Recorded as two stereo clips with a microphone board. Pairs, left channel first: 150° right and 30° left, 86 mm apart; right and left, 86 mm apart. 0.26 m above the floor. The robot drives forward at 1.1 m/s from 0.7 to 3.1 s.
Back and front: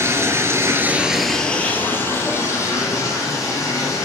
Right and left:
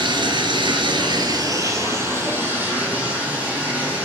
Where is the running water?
85° left, 0.9 m; by 4.0 s 160° left, 2.5 m.